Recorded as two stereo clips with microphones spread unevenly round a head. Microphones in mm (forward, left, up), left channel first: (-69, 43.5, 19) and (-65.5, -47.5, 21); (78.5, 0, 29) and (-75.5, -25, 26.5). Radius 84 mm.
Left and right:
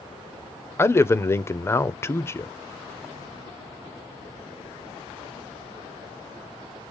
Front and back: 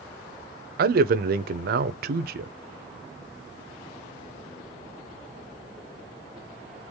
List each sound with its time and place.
0.8 s a man speaking: 155° left, 0.9 m